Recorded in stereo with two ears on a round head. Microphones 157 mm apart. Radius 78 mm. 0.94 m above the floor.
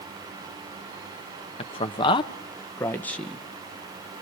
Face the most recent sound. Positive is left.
turn(degrees=0)  # may be behind; listen again after turning